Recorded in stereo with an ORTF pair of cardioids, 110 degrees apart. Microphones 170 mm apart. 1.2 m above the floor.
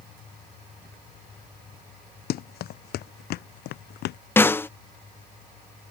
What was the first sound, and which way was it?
Running footsteps, 70° left.